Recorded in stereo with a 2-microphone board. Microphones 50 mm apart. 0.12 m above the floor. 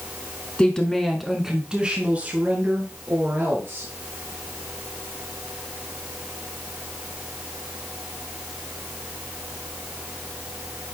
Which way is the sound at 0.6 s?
20° left (ahead or behind).